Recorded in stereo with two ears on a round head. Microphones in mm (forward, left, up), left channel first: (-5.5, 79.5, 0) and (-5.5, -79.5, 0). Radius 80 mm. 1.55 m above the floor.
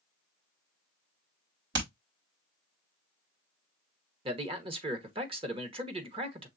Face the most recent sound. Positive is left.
turn(degrees=-30)  # may be behind; listen again after turning